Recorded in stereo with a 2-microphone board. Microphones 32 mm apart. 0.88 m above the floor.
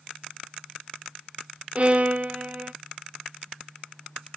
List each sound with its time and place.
1.8 s a violin: 40° right (ahead or behind), 1.0 m